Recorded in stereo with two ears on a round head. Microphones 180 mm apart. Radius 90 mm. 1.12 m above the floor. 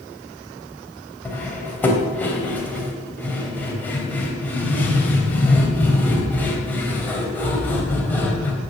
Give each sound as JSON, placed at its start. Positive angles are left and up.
{"t": 1.2, "sound": "cutlery clinking", "side_deg": 10, "distance_m": 3.0}